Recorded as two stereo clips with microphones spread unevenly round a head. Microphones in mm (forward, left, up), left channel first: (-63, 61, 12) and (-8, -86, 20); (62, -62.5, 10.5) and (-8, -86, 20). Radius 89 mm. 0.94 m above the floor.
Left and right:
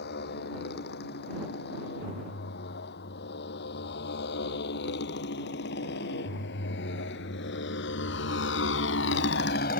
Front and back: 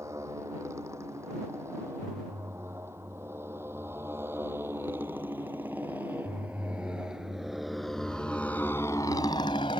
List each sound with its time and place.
0.0 s a motorcycle: 125° left; by 9.8 s 65° left